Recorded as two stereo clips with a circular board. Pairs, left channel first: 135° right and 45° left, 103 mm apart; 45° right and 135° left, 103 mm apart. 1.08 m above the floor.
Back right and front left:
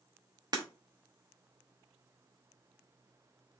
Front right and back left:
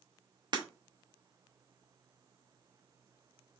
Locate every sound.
0.5 s breaking glass: 95° left, 0.9 m